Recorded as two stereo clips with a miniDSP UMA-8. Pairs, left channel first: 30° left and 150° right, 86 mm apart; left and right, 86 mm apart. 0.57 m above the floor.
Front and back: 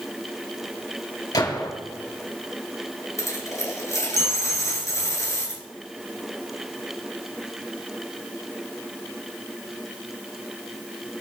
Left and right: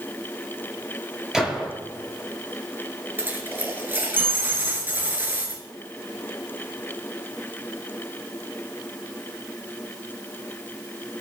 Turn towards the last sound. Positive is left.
turn(degrees=-25)